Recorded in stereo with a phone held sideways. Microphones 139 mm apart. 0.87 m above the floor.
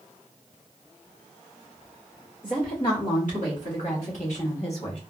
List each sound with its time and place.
2.4 s a woman speaking: 75° left (ahead or behind), 2 m; by 5.0 s 45° left (ahead or behind), 1.1 m